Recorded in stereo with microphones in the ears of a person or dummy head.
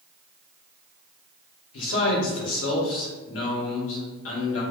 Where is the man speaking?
85° left, 1.3 m.